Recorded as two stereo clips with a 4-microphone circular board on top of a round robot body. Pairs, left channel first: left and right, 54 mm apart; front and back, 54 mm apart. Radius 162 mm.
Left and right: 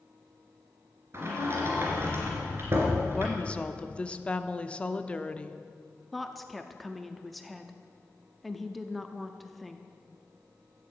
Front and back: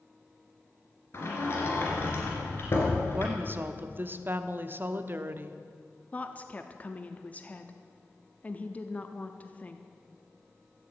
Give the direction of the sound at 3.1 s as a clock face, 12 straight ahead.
7 o'clock.